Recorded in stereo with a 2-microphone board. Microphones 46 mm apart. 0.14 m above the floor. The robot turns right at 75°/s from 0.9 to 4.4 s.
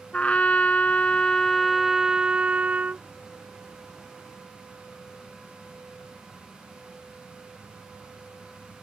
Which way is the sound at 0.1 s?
120° left.